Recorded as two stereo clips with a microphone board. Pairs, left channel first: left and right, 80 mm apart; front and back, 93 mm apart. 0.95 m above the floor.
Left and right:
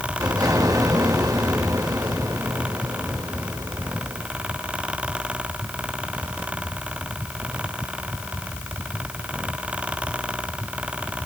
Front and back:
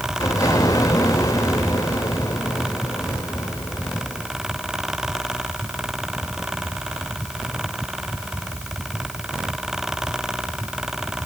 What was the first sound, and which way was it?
An explosion, 50° right.